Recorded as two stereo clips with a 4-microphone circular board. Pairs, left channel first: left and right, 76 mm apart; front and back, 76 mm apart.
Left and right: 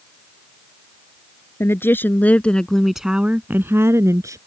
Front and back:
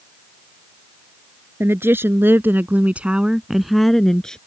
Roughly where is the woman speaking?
Behind left.